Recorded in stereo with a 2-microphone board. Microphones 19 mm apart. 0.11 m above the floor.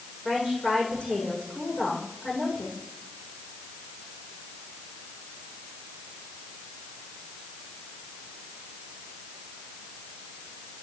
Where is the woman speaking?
70° left (ahead or behind), 8 m.